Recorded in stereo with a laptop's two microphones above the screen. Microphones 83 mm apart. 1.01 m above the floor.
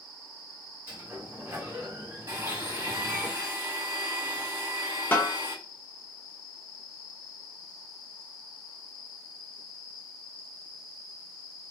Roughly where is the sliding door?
Right.